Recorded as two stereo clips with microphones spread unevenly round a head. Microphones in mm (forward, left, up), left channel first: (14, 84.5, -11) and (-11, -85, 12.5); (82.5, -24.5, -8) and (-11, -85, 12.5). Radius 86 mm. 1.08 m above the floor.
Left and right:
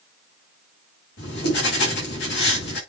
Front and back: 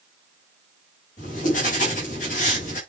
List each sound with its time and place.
1.2 s writing: 50° left, 6.5 m